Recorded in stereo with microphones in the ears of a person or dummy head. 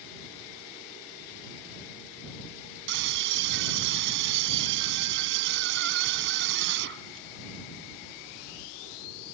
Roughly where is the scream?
Right.